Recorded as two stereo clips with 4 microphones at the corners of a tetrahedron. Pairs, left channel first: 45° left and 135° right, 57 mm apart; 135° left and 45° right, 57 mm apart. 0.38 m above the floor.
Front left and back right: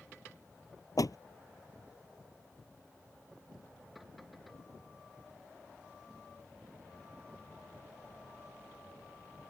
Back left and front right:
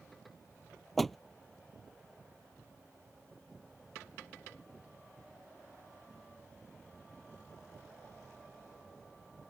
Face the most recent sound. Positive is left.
turn(degrees=50)